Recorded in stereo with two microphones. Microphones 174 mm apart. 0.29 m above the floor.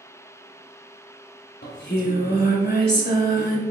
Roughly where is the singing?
Left.